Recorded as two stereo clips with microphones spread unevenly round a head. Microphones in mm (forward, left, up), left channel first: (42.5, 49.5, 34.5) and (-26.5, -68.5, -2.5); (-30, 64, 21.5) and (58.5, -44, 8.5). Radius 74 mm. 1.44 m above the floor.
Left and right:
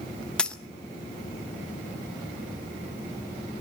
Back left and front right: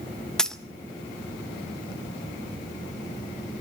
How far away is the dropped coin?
About 0.7 m.